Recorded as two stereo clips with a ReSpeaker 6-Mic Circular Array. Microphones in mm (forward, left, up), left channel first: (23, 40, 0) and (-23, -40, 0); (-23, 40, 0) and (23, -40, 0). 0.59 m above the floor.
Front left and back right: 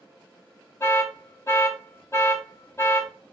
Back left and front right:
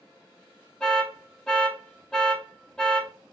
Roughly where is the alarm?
Ahead left.